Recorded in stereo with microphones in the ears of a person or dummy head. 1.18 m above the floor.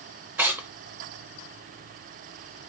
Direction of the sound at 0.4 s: 10° right (ahead or behind).